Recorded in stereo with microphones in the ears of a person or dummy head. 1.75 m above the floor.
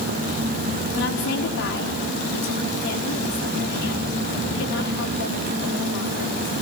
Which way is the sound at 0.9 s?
70° left (ahead or behind).